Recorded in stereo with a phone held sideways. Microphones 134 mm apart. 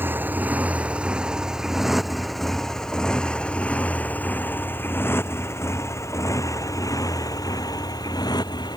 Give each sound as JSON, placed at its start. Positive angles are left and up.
{"t": 0.0, "sound": "a motorcycle", "side_deg": -15}